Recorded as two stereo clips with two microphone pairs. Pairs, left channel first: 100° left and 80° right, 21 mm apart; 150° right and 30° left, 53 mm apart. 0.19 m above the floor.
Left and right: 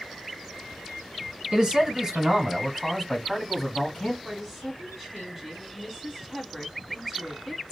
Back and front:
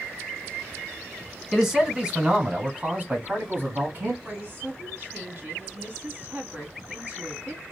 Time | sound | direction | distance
1.5 | a man speaking | 55° right | 1.3 m
4.2 | a woman speaking | 40° left | 1.4 m